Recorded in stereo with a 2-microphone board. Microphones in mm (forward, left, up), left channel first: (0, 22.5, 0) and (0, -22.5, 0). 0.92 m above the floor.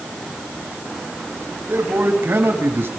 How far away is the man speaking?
About 6.5 m.